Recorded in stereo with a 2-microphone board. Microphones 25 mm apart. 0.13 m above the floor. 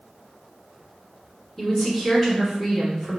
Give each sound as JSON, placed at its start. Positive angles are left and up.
{"t": 1.6, "sound": "a woman speaking", "side_deg": 5, "distance_m": 1.4}